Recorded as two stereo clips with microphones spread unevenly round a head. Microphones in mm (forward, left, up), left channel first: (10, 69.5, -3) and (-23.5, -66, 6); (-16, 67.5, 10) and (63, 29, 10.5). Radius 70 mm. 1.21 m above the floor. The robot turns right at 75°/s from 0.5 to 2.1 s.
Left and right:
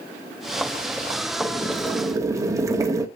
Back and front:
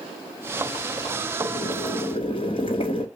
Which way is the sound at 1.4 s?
140° left.